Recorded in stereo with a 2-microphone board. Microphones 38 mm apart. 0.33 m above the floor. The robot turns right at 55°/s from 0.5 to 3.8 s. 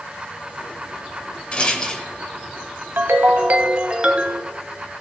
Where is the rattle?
30° left (ahead or behind), 1.0 m; by 2.1 s 20° left (ahead or behind), 1.0 m.